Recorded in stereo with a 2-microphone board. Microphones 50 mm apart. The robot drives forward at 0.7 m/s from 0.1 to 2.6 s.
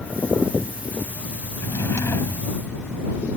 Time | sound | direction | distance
1.6 | a drawer | 75° left (ahead or behind) | ?